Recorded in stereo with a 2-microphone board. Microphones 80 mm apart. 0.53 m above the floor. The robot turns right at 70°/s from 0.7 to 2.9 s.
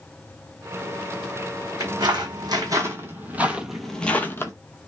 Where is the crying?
No crying in this recording.